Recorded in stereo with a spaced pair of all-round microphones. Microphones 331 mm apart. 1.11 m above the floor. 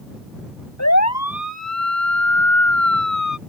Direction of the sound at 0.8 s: 55° left (ahead or behind).